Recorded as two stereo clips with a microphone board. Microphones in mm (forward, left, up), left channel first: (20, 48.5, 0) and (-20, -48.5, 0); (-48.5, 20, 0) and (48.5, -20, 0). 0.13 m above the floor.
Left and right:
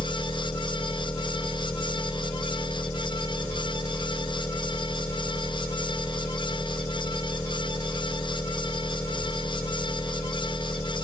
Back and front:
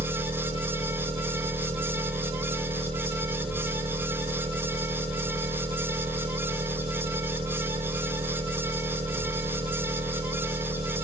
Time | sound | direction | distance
0.0 | an engine running | 5° right | 8 m